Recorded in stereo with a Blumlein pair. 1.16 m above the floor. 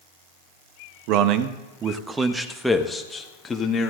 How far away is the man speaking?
About 1.2 m.